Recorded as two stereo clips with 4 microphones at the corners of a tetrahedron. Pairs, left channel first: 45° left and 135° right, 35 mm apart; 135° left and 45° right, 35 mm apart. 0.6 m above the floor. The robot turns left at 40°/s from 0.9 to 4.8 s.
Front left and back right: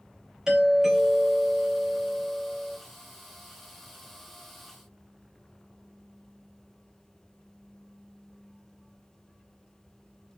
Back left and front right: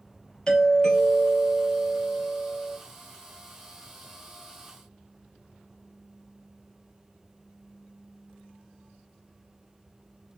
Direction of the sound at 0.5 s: Straight behind.